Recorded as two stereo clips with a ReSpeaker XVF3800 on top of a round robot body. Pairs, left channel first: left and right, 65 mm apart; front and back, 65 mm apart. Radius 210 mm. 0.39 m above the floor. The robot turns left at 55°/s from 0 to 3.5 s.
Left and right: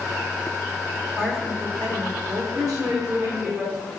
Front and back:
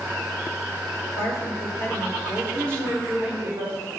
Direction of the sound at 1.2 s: 10° left.